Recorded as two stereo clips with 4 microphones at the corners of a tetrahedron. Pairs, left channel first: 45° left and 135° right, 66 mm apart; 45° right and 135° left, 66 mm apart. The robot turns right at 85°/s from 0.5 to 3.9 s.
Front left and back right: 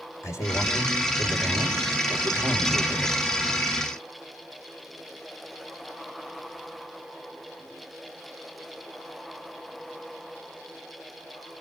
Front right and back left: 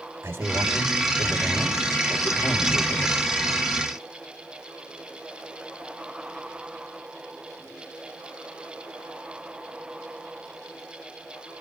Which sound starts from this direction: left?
A man speaking, at 0.2 s.